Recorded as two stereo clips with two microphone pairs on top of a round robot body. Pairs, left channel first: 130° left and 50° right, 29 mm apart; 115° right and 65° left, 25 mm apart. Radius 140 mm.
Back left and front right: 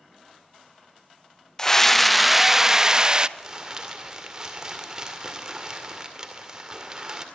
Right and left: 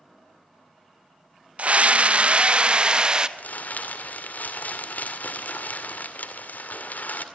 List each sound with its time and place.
1.6 s a scream: 65° left, 1.2 m; by 3.3 s 10° left, 1.6 m
3.4 s crumpling: 120° right, 2 m